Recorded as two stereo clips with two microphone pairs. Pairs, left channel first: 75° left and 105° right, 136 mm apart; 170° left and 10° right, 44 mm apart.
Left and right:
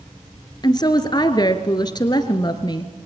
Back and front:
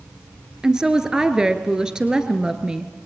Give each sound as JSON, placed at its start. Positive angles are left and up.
{"t": 0.6, "sound": "a woman speaking", "azimuth_deg": 50, "distance_m": 1.5}